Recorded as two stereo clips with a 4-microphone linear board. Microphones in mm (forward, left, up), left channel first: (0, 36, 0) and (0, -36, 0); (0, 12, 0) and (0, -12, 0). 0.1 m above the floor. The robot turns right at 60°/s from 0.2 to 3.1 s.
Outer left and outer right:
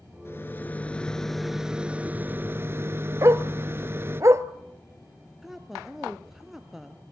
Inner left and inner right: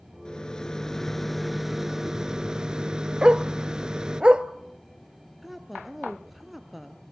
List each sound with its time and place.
0.2 s a rattle: 110° left, 1.1 m; by 4.2 s 80° right, 1.1 m
3.2 s a dog barking: 45° right (ahead or behind), 0.7 m
5.4 s a woman speaking: 5° right (ahead or behind), 1.5 m